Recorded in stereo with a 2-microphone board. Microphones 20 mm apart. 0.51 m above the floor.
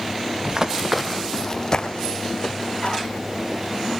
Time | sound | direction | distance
0.5 | running footsteps | 35° right (ahead or behind) | 1.3 m